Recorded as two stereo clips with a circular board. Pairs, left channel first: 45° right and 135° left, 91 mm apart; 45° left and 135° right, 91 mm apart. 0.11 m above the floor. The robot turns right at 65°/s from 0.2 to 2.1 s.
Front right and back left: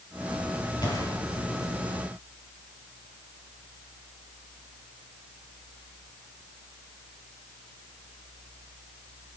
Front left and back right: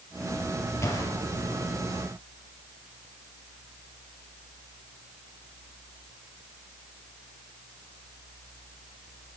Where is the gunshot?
10° right, 3 m; by 1.1 s 15° left, 3 m.